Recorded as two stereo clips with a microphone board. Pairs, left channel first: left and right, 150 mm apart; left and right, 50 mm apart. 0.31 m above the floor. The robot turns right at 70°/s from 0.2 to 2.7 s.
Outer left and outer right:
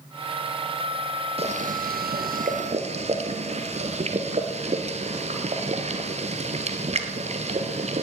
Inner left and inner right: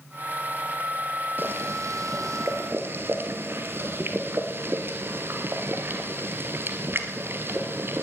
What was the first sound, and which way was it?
Boiling, 140° right.